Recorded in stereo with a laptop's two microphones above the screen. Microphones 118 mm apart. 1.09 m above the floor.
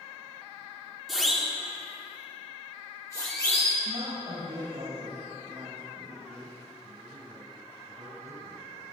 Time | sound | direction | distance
1.1 | a siren | centre (ahead or behind) | 3.5 m
3.9 | a woman speaking | 65° right (ahead or behind) | 7 m
6.8 | a man speaking | 85° right | 6.5 m